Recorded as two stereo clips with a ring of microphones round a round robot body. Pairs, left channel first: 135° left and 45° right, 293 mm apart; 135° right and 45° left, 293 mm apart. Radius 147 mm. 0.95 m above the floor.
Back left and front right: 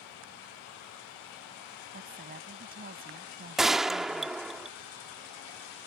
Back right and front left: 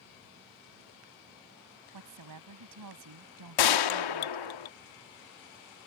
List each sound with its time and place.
1.9 s a woman speaking: 15° left
3.6 s a gunshot: 135° right